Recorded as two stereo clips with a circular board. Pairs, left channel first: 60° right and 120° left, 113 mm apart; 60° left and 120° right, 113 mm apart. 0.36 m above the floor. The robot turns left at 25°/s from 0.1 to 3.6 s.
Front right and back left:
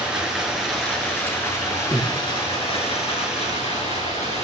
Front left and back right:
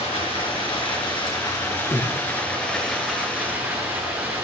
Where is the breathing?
15° left, 1.8 m; by 2.2 s 5° left, 1.8 m.